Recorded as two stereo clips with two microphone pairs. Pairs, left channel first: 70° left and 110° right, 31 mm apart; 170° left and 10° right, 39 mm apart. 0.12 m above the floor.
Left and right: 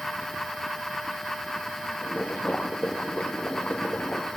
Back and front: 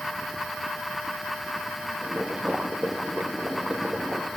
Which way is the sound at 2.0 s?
50° left.